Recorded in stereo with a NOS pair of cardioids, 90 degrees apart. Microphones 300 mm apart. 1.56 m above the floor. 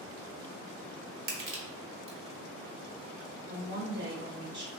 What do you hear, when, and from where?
1.3 s crushing: 45° right, 1.1 m
3.5 s a woman speaking: 35° right, 1.1 m